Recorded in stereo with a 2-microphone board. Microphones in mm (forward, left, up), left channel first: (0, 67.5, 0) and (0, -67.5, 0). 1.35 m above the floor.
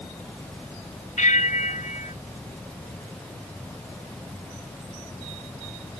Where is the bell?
65° left (ahead or behind).